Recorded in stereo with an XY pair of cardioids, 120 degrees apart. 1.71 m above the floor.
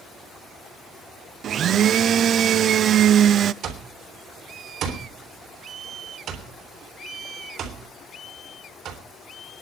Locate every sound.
1.4 s a blender: 50° right, 0.5 m
3.6 s an alarm clock: 65° right, 3.5 m